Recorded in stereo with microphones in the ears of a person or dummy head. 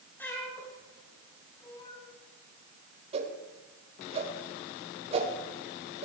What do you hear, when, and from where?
0.2 s a cat meowing: 15° left (ahead or behind), 6 m; by 2.1 s 40° left (ahead or behind), 4.5 m
3.1 s a whoosh: 40° right (ahead or behind), 3.5 m